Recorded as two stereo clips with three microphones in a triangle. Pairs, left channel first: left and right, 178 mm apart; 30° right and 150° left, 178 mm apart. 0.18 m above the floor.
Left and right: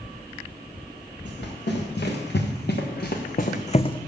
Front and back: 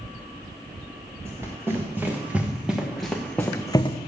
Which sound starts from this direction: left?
Running footsteps, at 1.2 s.